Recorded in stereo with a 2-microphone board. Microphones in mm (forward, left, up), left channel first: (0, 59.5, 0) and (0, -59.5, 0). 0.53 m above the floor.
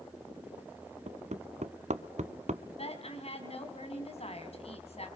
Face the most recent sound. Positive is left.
turn(degrees=55)  # may be behind; listen again after turning